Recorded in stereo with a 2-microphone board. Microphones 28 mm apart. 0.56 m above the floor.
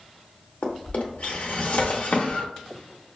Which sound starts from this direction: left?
A drawer, at 0.6 s.